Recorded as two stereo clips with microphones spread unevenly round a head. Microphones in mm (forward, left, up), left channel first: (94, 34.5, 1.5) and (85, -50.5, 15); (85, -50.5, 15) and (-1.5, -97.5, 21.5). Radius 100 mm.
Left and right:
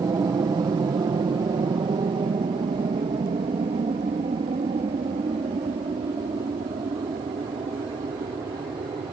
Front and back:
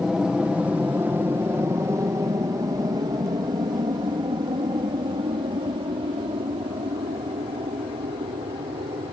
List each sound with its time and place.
0.0 s an aircraft: 65° right; by 9.1 s 130° right